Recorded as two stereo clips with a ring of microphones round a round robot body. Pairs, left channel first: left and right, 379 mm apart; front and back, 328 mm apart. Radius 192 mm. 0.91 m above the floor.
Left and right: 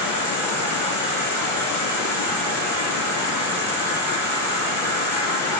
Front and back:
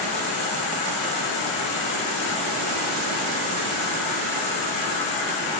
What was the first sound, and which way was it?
An insect, 5° right.